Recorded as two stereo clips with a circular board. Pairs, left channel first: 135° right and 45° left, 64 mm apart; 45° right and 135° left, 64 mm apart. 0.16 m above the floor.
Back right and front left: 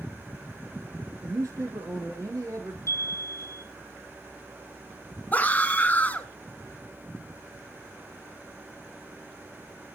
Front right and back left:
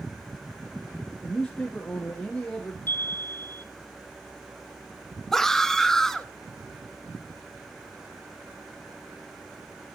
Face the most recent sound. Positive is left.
turn(degrees=-120)